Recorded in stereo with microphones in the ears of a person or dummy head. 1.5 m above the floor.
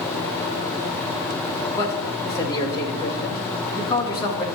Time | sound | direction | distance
1.8 | a man speaking | 25° left (ahead or behind) | 1.2 m